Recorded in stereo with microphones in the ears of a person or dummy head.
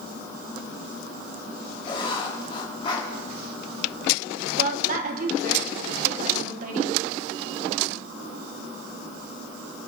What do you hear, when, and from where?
1.9 s writing: 30° left (ahead or behind), 2.5 m
4.6 s a woman speaking: 50° right (ahead or behind), 1.7 m